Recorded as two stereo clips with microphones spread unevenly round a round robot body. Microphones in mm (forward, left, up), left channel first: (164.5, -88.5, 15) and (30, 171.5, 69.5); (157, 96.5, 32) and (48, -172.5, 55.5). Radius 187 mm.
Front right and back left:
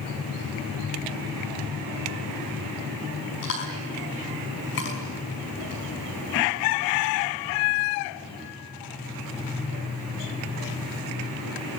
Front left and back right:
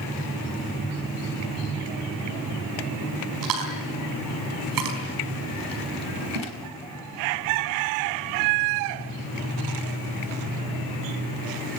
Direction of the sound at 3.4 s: 120° right.